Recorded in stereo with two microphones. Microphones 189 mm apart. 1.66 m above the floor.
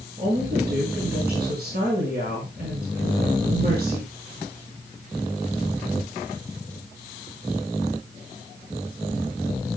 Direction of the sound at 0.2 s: 65° right (ahead or behind).